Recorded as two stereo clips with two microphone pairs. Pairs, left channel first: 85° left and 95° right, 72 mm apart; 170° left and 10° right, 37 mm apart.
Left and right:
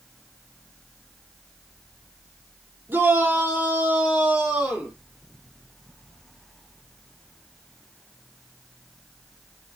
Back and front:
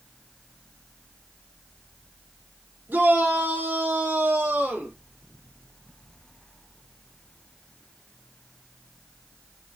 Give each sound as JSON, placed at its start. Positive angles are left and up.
{"t": 2.9, "sound": "a shout", "azimuth_deg": -35, "distance_m": 4.5}